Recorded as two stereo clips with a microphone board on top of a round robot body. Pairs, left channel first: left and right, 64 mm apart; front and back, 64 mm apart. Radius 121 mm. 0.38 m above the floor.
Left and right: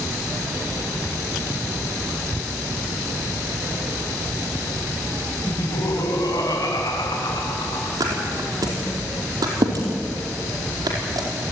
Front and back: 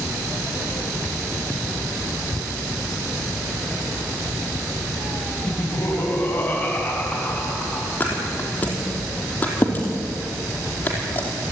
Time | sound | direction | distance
5.5 | laughter | 55° left | 3 m
8.0 | a thud | 65° right | 5 m